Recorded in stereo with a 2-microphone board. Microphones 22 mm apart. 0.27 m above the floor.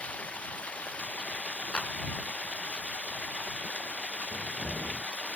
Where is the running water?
85° left.